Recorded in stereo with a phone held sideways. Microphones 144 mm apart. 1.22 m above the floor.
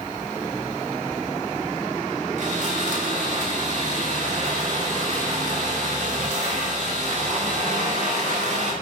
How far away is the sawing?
About 4.5 m.